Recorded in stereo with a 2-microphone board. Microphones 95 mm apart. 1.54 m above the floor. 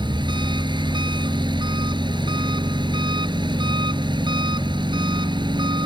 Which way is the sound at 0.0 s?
50° right (ahead or behind).